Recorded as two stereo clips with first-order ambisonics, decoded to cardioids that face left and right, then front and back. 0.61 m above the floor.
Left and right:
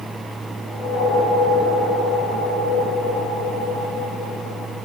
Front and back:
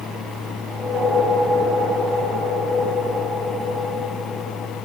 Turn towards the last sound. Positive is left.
turn(degrees=110)